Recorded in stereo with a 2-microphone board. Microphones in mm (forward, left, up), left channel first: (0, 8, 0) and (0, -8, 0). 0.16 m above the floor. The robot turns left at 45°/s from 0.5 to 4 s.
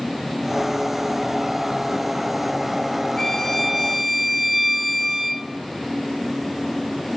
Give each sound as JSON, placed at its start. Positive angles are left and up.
{"t": 3.2, "sound": "a violin", "azimuth_deg": 30, "distance_m": 1.3}